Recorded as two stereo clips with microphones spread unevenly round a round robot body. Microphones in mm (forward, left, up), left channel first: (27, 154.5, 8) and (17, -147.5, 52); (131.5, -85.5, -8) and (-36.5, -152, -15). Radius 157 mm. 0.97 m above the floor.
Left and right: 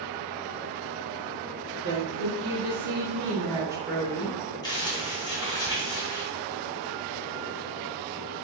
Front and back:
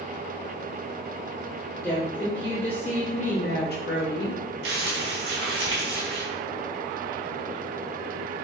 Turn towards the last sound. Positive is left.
turn(degrees=170)